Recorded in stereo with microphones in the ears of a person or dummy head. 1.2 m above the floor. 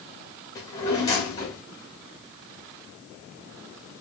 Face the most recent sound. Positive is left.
turn(degrees=20)  # may be behind; listen again after turning